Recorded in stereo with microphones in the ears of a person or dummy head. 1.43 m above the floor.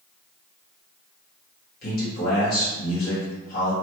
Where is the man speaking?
60° left (ahead or behind), 1.4 m.